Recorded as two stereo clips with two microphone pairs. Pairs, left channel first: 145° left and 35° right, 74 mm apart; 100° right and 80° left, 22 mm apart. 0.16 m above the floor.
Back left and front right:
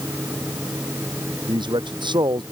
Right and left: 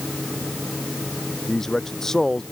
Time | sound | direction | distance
1.5 | a man speaking | 35° right | ?